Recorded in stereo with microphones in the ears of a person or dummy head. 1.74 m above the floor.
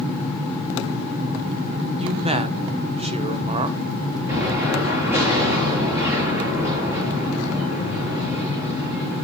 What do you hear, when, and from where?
2.0 s a man speaking: 35° right (ahead or behind), 1.4 m
4.3 s an explosion: 15° right (ahead or behind), 8.5 m